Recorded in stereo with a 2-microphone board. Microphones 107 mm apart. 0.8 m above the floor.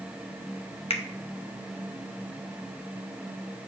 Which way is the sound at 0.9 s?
65° left (ahead or behind).